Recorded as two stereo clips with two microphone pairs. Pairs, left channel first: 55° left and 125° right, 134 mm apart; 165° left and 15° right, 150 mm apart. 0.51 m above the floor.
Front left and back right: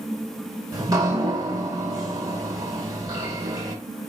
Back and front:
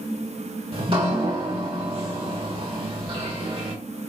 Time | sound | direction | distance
0.7 | dripping | 65° right | 1.2 m